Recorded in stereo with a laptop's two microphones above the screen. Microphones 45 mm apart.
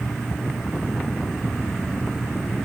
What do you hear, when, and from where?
0.0 s an insect: 5° left (ahead or behind), 4.5 m